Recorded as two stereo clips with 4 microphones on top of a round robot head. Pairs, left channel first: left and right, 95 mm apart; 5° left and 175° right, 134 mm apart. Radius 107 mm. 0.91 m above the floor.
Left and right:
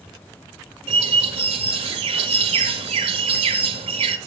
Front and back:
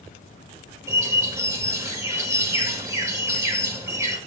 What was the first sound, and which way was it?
A bird, 105° right.